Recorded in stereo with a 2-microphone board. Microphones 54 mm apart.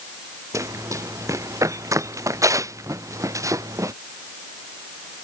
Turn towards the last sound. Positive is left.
turn(degrees=-85)